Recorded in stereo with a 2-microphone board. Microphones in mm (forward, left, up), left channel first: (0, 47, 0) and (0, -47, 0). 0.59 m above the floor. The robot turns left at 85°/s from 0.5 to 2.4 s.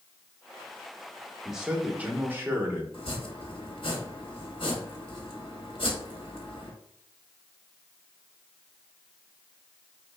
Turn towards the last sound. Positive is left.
turn(degrees=70)  # may be behind; listen again after turning